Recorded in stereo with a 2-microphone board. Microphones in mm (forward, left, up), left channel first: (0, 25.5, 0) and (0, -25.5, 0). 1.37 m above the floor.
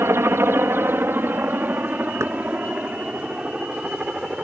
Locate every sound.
0.0 s a helicopter: 55° right (ahead or behind); by 4.4 s 20° right (ahead or behind)
2.2 s knocking: 70° right (ahead or behind)